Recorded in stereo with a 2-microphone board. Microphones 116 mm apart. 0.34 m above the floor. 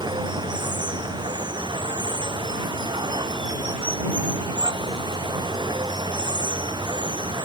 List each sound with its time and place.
0.0 s running water: 45° right (ahead or behind)